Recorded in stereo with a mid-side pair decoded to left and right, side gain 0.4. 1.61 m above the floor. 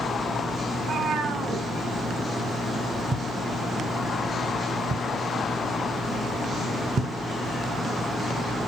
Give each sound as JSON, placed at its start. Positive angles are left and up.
{"t": 0.7, "sound": "a cat meowing", "azimuth_deg": -60, "distance_m": 3.0}
{"t": 3.1, "sound": "a thud", "azimuth_deg": -55, "distance_m": 3.0}